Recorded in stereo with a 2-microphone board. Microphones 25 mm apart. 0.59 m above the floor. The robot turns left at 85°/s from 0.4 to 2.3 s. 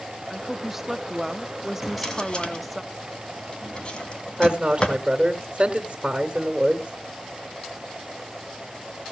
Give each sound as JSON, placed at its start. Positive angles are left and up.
{"t": 0.3, "sound": "a woman speaking", "side_deg": -5, "distance_m": 0.6}
{"t": 1.8, "sound": "a drawer", "side_deg": 0, "distance_m": 1.9}
{"t": 4.4, "sound": "a woman speaking", "side_deg": -45, "distance_m": 1.8}